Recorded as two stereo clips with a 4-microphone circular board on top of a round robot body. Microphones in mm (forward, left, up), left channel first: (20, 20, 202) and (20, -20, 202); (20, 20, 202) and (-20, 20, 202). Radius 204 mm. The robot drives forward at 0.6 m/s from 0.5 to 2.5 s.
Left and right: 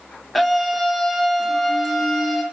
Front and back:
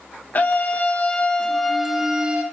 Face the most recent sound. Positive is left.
turn(degrees=180)